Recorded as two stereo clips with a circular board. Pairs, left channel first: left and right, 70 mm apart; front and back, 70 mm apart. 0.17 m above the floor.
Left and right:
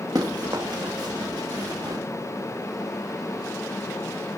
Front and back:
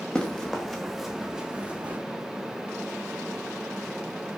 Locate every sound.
0.1 s running footsteps: 80° right, 4 m; by 2.0 s 115° right, 3 m